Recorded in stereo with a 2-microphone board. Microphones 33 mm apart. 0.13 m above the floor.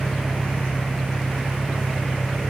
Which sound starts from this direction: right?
An engine running, at 0.0 s.